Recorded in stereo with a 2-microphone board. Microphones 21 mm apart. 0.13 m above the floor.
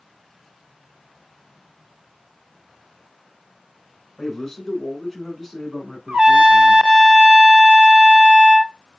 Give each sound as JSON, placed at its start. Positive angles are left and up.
{"t": 4.2, "sound": "a man speaking", "side_deg": 15, "distance_m": 1.3}
{"t": 6.1, "sound": "a trumpet", "side_deg": -70, "distance_m": 0.6}